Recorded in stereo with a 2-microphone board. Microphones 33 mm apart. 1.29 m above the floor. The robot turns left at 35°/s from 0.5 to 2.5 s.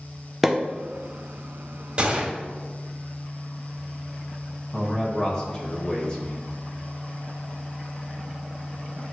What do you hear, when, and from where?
0.4 s a pop: centre (ahead or behind), 0.7 m
2.0 s a gunshot: 25° right (ahead or behind), 1.0 m
4.7 s a man speaking: 25° left (ahead or behind), 1.6 m